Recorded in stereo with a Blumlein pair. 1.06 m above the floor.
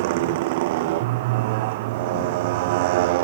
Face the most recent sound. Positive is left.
turn(degrees=-50)